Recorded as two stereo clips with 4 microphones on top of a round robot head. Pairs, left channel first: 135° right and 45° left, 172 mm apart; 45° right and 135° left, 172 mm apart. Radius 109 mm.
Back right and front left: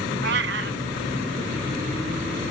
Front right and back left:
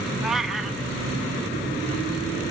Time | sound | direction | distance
0.2 | a cat meowing | 45° left | 0.7 m